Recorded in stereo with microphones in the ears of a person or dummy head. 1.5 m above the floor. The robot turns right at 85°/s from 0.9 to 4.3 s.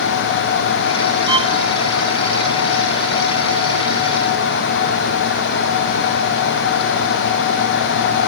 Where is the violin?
25° right (ahead or behind), 1.5 m; by 1.5 s 45° right (ahead or behind), 1.5 m.